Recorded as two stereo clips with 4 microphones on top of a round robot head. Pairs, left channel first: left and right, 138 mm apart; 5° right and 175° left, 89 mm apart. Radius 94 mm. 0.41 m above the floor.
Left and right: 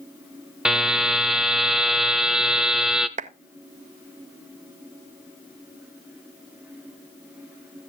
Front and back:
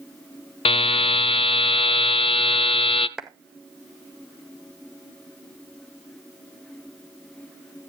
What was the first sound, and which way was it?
A buzzer, 5° right.